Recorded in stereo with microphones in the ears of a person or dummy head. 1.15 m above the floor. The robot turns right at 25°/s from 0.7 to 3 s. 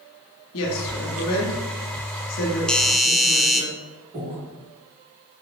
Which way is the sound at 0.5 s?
75° left (ahead or behind).